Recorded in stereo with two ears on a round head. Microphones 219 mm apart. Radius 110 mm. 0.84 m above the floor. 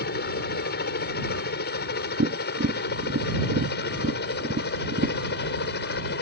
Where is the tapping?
40° right (ahead or behind).